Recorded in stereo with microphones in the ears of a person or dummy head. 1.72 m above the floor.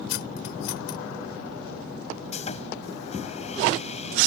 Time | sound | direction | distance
0.1 | cutlery clinking | 70° left (ahead or behind) | ?
2.3 | sawing | 35° left (ahead or behind) | ?